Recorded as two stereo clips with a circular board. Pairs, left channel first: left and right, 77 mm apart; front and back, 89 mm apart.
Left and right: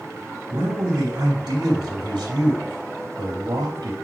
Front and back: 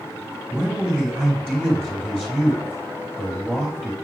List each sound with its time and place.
0.5 s a man speaking: 90° right, 2.5 m